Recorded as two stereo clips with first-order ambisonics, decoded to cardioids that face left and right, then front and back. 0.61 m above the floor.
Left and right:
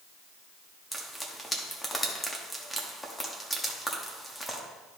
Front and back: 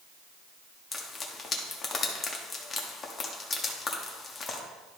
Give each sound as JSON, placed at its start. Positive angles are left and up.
{"t": 0.9, "sound": "frying", "azimuth_deg": 15, "distance_m": 1.2}